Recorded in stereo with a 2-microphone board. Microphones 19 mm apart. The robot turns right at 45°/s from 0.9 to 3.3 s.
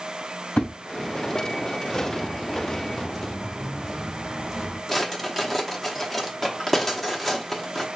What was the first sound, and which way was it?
A thud, 80° left.